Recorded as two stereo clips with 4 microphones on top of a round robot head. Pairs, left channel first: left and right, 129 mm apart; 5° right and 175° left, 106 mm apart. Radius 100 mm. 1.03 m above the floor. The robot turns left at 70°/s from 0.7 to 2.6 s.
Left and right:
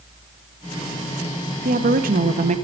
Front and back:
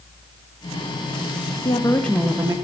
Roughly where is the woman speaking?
Ahead right.